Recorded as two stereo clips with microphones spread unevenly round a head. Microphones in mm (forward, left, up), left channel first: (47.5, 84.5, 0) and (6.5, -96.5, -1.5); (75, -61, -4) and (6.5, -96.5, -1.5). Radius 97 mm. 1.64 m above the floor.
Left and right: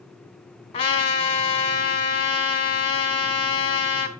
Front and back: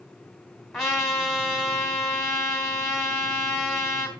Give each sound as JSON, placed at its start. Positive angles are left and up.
{"t": 0.7, "sound": "a trumpet", "azimuth_deg": 120, "distance_m": 1.6}